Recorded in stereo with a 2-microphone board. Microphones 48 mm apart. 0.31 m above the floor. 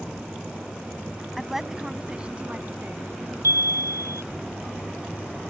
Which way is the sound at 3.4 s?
80° right.